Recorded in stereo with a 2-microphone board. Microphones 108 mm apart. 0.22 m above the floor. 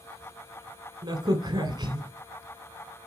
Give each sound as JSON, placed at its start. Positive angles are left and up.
{"t": 1.0, "sound": "a crack", "side_deg": -40, "distance_m": 1.7}